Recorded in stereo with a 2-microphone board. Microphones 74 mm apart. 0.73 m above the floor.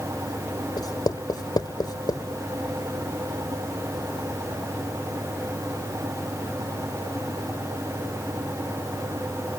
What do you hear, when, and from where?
0.8 s writing: 65° left (ahead or behind)